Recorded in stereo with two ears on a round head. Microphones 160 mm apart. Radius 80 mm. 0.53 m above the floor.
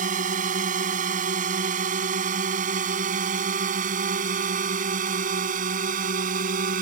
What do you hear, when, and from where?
0.0 s a drone: 45° right (ahead or behind); by 6.8 s 50° right (ahead or behind)